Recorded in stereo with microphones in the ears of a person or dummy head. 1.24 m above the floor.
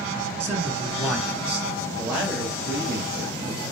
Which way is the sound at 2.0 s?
5° right (ahead or behind).